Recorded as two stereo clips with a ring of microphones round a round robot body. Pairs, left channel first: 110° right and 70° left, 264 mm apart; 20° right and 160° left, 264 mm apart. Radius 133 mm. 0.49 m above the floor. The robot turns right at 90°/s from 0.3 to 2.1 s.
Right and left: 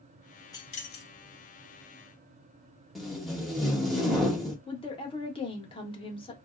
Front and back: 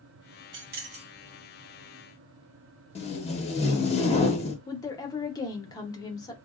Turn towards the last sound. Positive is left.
turn(degrees=-75)